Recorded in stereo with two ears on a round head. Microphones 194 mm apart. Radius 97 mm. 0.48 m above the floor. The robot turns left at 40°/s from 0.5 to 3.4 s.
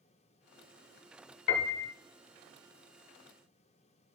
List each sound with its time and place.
1.5 s a piano: 55° left (ahead or behind), 1.0 m; by 1.9 s 65° left (ahead or behind), 1.0 m